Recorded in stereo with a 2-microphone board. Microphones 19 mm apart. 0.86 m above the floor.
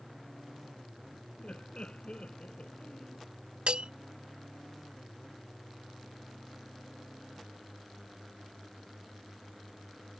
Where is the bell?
70° right (ahead or behind).